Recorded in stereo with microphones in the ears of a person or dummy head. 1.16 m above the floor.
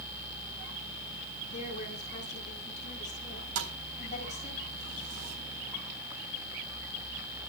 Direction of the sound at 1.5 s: 45° left (ahead or behind).